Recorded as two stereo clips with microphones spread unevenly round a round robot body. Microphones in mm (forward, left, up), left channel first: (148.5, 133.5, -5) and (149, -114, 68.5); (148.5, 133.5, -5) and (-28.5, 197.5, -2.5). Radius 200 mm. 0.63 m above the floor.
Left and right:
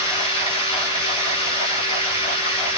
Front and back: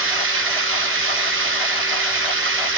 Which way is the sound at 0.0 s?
165° left.